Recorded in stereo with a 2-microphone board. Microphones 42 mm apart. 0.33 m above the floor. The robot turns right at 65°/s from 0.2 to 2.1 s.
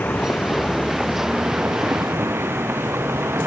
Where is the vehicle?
135° left; by 3.5 s 100° right.